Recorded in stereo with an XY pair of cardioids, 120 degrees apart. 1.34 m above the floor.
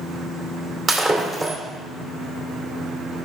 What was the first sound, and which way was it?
Breaking glass, 25° right.